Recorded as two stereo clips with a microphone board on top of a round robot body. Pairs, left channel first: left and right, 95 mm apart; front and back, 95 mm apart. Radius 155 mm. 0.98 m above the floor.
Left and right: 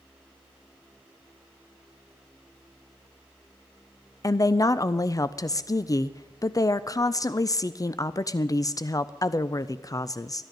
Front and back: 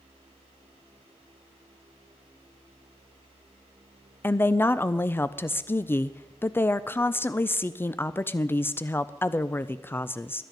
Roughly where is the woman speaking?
Ahead left.